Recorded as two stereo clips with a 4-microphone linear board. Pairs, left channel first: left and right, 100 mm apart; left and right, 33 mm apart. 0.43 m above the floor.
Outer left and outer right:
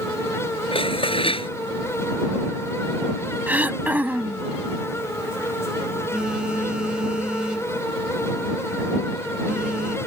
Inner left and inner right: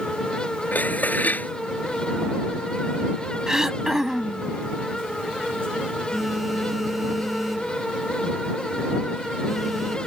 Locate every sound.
0.7 s dishes clattering: 65° left (ahead or behind)
3.5 s throat clearing: 15° right (ahead or behind)
6.1 s a phone buzzing: 10° right (ahead or behind)